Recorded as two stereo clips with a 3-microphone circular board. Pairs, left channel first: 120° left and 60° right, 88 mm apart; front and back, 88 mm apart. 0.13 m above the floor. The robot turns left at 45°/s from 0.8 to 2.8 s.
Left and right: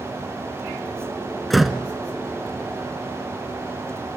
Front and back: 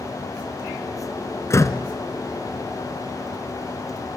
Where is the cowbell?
No cowbell in this recording.